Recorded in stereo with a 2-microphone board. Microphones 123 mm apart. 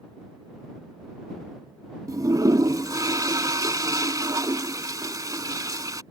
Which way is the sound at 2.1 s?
30° right (ahead or behind).